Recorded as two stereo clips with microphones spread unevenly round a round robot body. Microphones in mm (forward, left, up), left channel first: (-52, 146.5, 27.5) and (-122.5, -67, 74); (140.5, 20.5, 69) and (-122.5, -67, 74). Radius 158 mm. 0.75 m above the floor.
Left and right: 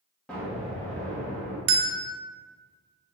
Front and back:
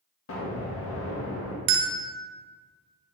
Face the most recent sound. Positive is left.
turn(degrees=-140)